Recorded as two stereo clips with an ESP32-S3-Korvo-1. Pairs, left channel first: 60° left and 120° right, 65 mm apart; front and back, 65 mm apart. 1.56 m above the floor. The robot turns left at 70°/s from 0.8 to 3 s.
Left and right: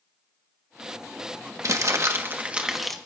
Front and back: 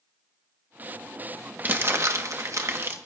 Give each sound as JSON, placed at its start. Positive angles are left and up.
{"t": 1.6, "sound": "crumpling", "azimuth_deg": -125, "distance_m": 1.3}